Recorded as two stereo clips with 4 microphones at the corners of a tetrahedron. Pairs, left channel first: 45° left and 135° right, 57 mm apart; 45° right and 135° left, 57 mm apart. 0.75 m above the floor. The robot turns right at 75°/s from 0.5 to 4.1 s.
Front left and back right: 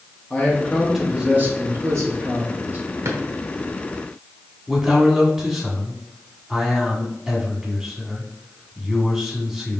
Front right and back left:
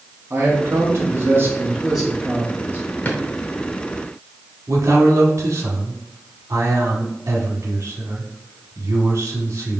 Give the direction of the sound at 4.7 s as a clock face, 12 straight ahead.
7 o'clock.